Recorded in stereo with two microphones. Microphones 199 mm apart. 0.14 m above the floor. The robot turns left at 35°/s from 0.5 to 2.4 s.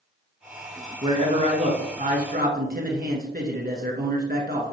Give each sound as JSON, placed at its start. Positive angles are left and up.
{"t": 1.0, "sound": "a man speaking", "azimuth_deg": -35, "distance_m": 1.6}